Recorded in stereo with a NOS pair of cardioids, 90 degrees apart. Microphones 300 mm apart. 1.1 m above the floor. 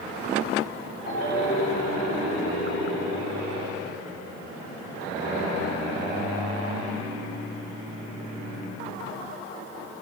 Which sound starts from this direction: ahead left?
A ringtone, at 1.1 s.